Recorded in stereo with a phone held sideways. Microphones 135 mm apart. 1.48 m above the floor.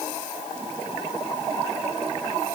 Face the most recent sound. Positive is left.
No sound to turn to.